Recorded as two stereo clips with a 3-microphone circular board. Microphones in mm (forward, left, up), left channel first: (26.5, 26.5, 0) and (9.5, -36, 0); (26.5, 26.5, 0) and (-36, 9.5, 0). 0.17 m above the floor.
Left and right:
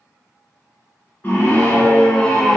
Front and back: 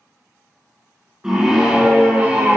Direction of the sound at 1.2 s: 120° left.